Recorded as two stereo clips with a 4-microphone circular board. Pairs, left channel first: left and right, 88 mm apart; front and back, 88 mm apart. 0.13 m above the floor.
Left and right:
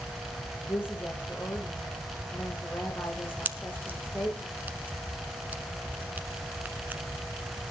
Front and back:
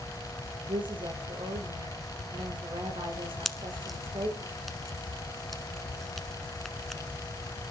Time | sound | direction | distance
0.7 | a woman speaking | 155° left | 7 m
3.5 | a pop | 85° right | 1.2 m